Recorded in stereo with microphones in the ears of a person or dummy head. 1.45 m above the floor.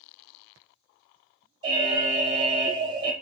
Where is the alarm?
30° right (ahead or behind), 1.0 m.